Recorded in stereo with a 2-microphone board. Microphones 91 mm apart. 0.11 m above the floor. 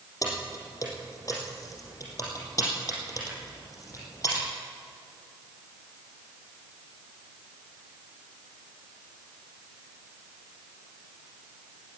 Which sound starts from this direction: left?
Keys jangling, at 0.2 s.